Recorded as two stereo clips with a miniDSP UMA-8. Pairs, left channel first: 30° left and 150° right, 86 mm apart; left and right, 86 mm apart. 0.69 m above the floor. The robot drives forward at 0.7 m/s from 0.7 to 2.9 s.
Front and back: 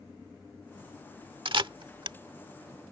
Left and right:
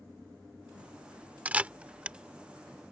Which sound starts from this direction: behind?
A camera shutter, at 1.4 s.